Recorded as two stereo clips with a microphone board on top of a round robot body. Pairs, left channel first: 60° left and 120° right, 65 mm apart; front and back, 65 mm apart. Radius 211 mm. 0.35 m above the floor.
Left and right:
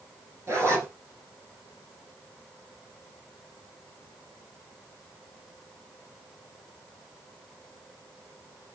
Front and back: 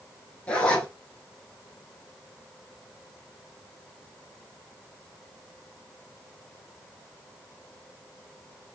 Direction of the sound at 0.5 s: 70° right.